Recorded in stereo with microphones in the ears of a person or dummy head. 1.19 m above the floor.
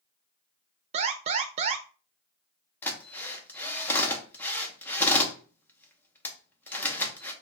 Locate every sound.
0.9 s an alarm: 35° right (ahead or behind), 0.7 m
2.8 s a drill: 10° left (ahead or behind), 1.0 m